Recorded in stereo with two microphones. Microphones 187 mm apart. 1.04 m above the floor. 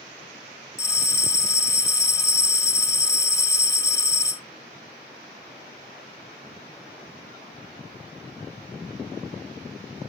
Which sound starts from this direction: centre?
A bell, at 0.8 s.